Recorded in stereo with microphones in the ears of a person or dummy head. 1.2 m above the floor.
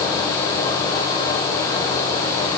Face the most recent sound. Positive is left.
No sound to turn to.